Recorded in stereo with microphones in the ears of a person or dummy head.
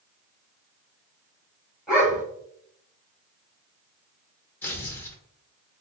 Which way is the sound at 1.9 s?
5° right (ahead or behind).